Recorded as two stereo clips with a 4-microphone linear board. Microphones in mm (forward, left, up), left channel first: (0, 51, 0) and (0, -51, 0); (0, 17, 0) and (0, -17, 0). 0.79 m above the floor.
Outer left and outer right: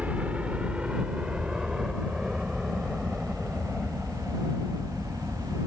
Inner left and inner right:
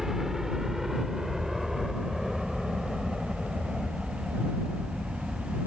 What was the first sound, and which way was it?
A helicopter, 10° right (ahead or behind).